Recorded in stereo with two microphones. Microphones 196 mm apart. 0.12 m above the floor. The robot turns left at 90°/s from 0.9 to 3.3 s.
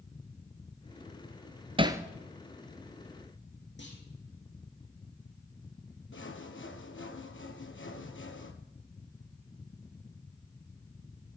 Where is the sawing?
70° left (ahead or behind), 0.9 m.